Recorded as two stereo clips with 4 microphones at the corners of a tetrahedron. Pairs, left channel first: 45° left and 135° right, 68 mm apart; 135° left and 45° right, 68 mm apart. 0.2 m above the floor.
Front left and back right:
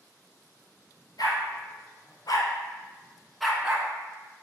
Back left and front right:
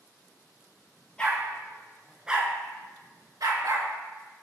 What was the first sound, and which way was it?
A dog barking, 60° left.